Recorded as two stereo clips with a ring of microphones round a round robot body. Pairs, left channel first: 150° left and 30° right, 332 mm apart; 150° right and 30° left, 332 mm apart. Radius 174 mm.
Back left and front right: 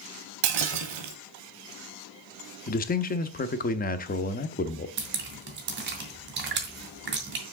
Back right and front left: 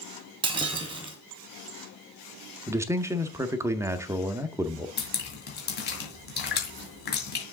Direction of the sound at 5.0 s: 90° right.